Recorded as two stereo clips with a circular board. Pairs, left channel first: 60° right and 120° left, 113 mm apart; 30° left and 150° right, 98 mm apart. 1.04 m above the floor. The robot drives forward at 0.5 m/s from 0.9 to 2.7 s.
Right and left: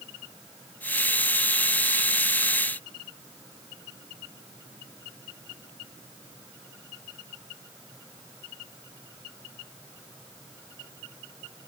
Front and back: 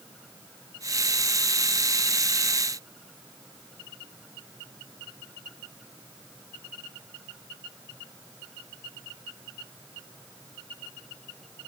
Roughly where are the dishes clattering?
No dishes clattering in this recording.